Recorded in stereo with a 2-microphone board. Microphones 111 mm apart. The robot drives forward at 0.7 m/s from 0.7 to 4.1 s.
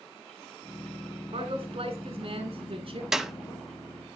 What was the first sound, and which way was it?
A man speaking, 60° right (ahead or behind).